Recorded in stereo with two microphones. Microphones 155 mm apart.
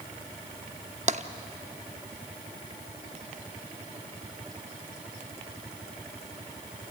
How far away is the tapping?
About 0.6 m.